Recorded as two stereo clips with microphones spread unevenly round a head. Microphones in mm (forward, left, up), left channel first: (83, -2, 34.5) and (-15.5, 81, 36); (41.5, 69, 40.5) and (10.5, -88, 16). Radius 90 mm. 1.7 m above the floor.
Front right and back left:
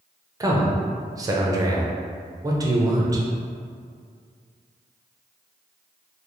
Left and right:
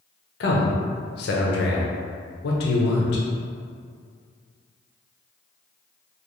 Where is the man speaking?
80° left, 0.6 m.